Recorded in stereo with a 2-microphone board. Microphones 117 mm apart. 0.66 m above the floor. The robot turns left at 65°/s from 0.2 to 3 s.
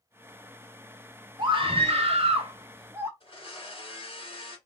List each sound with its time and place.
1.4 s a scream: 50° right, 1.0 m; by 3.1 s 155° right, 1.0 m
3.2 s a blender: 50° left (ahead or behind), 1.7 m